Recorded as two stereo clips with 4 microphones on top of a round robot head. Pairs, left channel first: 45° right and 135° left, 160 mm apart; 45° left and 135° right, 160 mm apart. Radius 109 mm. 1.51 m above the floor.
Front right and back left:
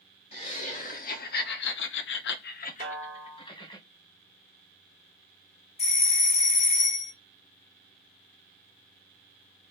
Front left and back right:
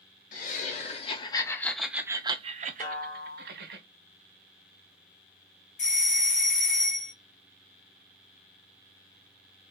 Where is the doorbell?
Straight ahead, 1.1 m.